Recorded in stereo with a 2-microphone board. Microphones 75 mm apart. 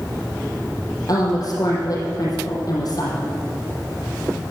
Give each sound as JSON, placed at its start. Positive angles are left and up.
{"t": 1.1, "sound": "a woman speaking", "side_deg": 50, "distance_m": 4.5}